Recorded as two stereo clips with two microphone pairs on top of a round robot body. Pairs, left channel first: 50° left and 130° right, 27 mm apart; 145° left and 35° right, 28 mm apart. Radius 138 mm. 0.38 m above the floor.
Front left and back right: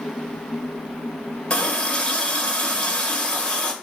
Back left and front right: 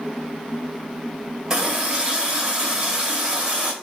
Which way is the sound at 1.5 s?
20° left.